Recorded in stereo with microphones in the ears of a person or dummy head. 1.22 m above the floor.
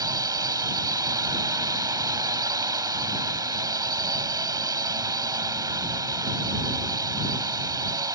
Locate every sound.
0.0 s a drone: 20° right (ahead or behind)